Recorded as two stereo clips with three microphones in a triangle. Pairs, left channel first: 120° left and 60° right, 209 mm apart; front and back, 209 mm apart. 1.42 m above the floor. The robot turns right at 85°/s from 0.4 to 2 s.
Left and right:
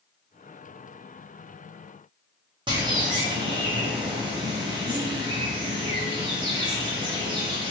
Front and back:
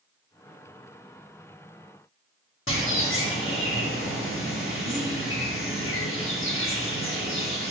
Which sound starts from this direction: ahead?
A bird, at 2.7 s.